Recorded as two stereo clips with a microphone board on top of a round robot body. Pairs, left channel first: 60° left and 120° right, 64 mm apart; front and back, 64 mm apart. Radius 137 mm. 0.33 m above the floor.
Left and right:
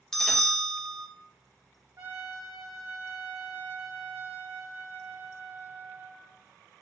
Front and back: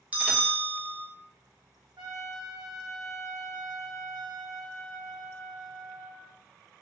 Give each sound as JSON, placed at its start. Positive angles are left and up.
{"t": 0.1, "sound": "a bell", "azimuth_deg": 135, "distance_m": 1.4}
{"t": 2.0, "sound": "a trumpet", "azimuth_deg": -165, "distance_m": 1.8}